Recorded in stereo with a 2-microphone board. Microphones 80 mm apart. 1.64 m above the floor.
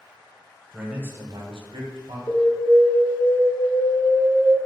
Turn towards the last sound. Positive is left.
turn(degrees=40)  # may be behind; listen again after turning